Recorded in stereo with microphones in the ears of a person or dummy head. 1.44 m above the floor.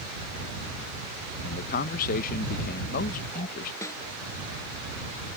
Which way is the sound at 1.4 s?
40° left (ahead or behind).